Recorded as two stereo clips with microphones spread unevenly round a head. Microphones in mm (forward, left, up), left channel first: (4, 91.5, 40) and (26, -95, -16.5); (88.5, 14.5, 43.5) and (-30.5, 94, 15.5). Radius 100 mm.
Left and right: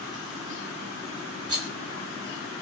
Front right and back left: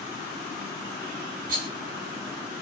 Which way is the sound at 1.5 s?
160° right.